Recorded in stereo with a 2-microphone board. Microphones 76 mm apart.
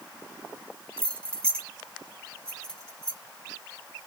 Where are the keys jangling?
15° left (ahead or behind), 0.9 m; by 3.2 s 10° left (ahead or behind), 2.5 m.